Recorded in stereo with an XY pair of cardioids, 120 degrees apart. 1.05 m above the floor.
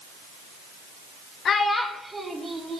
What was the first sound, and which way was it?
A child speaking, 50° left.